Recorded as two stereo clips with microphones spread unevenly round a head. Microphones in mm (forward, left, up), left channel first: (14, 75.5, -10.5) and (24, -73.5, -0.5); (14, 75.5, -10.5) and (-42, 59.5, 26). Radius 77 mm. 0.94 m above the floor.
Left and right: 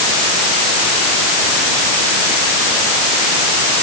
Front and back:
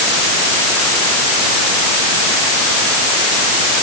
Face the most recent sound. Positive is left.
No sound to turn to.